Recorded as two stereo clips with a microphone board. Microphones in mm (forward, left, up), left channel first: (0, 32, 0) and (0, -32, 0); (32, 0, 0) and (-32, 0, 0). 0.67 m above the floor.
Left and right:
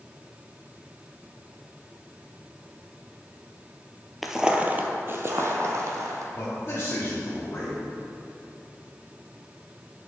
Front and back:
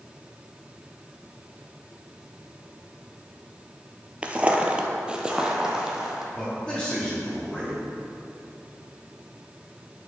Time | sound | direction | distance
4.2 | footsteps | 170° right | 0.7 m
6.3 | a man speaking | 70° left | 1.4 m